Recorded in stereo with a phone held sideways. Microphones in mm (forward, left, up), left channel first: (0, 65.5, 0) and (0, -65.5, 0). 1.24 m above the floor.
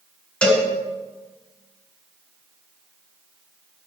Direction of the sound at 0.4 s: 10° left (ahead or behind).